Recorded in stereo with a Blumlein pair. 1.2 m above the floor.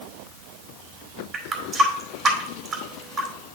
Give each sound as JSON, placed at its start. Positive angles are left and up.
{"t": 1.3, "sound": "a running tap", "azimuth_deg": -25, "distance_m": 2.0}